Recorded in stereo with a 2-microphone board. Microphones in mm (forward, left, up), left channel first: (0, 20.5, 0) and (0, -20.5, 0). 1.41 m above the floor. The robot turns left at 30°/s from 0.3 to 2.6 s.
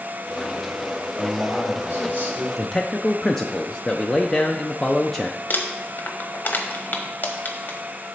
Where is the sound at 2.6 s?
10° left (ahead or behind), 0.5 m.